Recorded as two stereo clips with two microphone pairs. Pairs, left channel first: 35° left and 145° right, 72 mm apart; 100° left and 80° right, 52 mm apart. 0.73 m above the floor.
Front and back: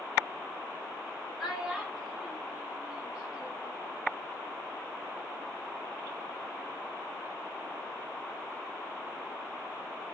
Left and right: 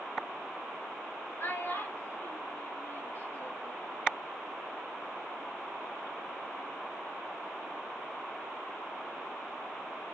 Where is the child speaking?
125° left, 3 m; by 3.8 s 140° left, 1.8 m.